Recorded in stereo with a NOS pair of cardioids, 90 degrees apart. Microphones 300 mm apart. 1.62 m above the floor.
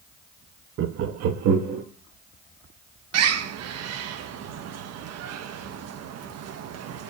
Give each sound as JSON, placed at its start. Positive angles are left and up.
{"t": 0.8, "sound": "laughter", "azimuth_deg": -45, "distance_m": 0.6}
{"t": 3.1, "sound": "a bird", "azimuth_deg": -60, "distance_m": 0.6}